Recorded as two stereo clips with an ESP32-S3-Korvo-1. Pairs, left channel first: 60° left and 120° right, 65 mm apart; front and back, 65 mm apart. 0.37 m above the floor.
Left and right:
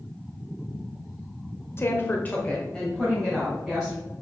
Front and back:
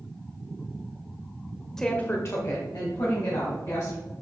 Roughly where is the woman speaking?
Left.